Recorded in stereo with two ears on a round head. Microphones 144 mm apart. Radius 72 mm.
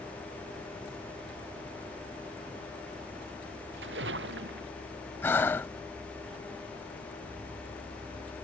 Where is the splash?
80° right.